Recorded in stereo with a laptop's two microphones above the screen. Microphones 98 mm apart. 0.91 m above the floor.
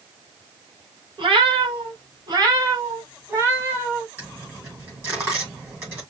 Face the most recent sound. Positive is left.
turn(degrees=-25)  # may be behind; listen again after turning